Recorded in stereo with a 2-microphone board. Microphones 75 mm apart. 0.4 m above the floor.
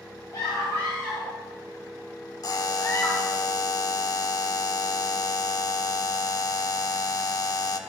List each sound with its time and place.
0.3 s a scream: 65° left (ahead or behind), 2.5 m; by 3.4 s 35° left (ahead or behind), 1.9 m
2.4 s a buzzer: 50° left (ahead or behind), 0.7 m